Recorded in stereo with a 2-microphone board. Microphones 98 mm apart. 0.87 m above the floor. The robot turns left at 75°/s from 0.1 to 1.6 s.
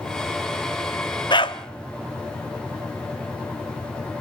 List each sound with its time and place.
1.3 s a dog barking: 50° left (ahead or behind), 0.9 m; by 1.6 s 55° left (ahead or behind), 0.9 m